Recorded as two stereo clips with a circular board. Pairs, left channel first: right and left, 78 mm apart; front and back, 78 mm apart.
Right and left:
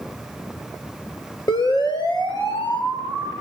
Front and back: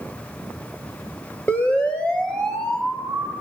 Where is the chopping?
I don't hear chopping.